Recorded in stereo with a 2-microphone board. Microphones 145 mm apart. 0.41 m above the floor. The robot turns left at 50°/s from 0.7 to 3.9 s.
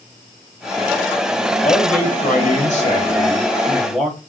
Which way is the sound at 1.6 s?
115° left.